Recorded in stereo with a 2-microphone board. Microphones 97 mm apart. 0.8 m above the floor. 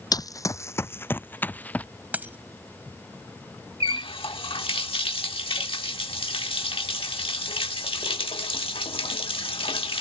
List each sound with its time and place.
0.1 s running footsteps: 40° left (ahead or behind); by 1.9 s 15° left (ahead or behind)
2.1 s a dropped coin: 15° right (ahead or behind)
3.8 s a running tap: 70° left (ahead or behind)